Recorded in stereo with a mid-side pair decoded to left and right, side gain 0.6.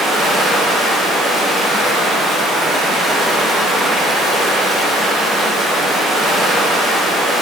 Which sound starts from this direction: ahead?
Running water, at 0.0 s.